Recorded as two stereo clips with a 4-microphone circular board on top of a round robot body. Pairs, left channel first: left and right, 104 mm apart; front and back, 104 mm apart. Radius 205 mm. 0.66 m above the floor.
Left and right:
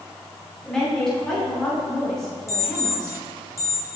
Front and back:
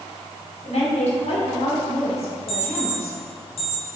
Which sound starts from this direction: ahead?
A woman speaking, at 0.7 s.